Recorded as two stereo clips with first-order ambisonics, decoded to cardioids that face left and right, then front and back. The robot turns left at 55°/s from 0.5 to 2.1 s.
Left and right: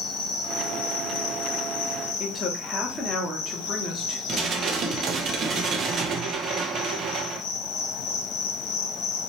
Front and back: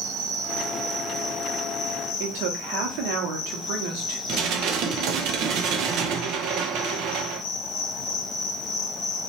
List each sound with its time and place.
0.0 s an insect: 140° left, 0.9 m; by 9.3 s 55° left, 0.9 m
2.2 s a woman speaking: 175° left, 1.4 m
4.3 s dishes clattering: 145° right, 0.6 m